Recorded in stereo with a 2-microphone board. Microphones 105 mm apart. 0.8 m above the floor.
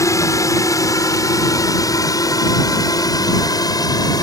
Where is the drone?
30° left (ahead or behind); by 4.2 s 35° left (ahead or behind).